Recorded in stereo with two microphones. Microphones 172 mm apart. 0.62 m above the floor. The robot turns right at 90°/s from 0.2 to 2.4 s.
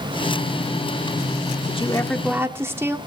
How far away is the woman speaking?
About 1.4 m.